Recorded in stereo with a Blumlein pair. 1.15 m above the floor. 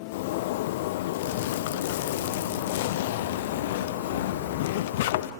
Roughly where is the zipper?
Ahead left.